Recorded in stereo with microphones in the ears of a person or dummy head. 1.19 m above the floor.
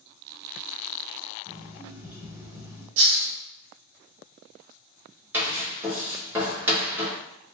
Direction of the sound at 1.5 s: 10° right (ahead or behind).